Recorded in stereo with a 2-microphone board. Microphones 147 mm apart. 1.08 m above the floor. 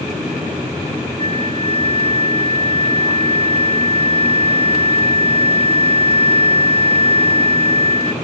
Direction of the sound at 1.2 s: 40° left (ahead or behind).